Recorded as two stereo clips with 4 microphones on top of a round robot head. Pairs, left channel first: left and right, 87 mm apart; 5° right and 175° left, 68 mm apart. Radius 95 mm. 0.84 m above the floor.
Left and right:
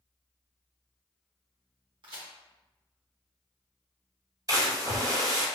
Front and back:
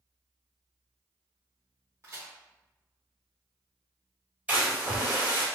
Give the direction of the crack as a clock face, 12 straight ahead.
4 o'clock.